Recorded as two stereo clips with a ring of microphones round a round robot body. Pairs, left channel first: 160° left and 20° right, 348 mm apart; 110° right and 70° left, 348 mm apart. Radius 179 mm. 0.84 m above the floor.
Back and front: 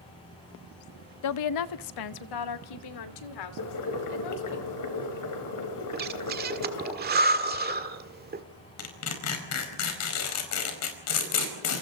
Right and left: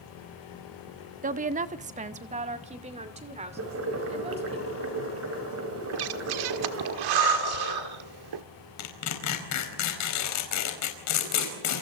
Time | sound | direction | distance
1.2 | a woman speaking | 130° left | 0.8 m
3.6 | boiling | 120° left | 4.5 m
5.9 | breathing | 40° left | 1.6 m
8.8 | tearing paper | 155° right | 5 m